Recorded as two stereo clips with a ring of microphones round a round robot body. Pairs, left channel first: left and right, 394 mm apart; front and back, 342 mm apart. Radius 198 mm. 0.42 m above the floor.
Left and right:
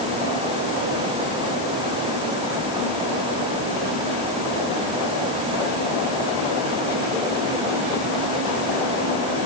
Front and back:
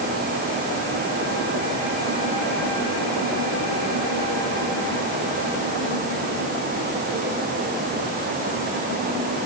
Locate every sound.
Only background noise.